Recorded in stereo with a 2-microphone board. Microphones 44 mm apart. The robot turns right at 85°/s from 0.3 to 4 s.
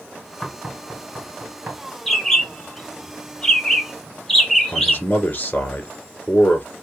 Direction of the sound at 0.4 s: Centre (ahead or behind).